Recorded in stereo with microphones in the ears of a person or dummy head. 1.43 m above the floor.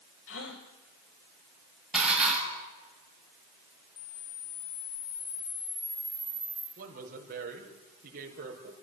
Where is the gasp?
75° left (ahead or behind), 4 m.